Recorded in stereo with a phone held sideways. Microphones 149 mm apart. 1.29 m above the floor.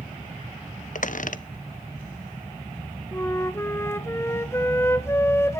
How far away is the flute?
About 0.7 m.